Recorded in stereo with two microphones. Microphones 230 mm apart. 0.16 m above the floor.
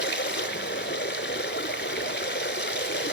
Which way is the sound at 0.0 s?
55° left (ahead or behind).